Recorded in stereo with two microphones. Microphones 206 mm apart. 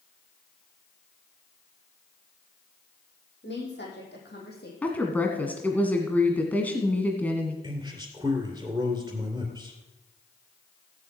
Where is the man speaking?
15° right (ahead or behind), 2.5 m.